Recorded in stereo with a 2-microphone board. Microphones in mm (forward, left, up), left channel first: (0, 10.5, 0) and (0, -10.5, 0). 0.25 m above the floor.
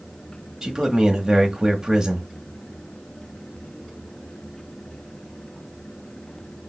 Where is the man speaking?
25° right (ahead or behind), 1.0 m.